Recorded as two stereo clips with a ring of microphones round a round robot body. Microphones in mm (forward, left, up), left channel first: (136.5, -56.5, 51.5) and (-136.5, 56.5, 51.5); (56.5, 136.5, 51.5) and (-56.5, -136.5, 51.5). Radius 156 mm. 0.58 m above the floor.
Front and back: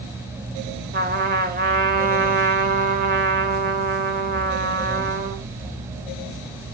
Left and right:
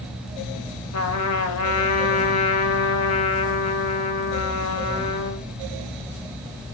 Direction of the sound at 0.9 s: 100° left.